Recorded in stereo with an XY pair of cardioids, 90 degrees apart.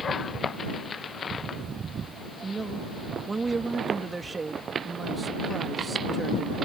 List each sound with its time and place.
2.4 s a man speaking: 30° right